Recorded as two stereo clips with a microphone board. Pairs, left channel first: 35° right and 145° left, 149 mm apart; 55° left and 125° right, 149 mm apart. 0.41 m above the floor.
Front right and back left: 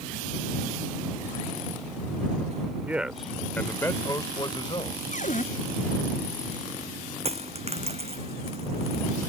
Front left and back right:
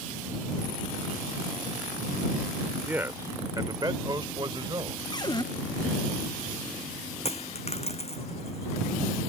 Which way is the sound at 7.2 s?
100° left.